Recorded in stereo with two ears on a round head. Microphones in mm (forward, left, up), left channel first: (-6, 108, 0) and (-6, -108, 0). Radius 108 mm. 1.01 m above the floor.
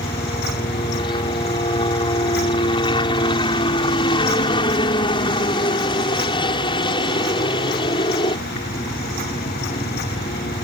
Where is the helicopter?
20° left (ahead or behind).